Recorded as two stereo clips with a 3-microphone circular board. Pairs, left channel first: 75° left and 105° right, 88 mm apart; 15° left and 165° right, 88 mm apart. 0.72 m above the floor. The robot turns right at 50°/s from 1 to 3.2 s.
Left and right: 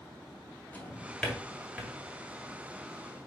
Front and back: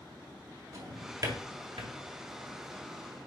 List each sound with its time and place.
0.7 s a drawer: 145° left, 2 m; by 1.9 s 165° right, 2 m